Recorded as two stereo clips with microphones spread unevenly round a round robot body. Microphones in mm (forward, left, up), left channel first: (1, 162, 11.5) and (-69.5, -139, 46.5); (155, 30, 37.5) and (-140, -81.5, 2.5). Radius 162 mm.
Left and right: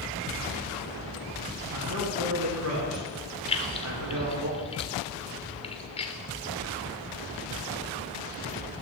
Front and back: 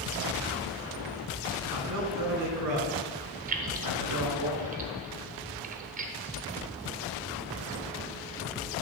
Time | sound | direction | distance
1.7 | a man speaking | 130° right | 4 m
3.5 | keys jangling | 145° left | 1.0 m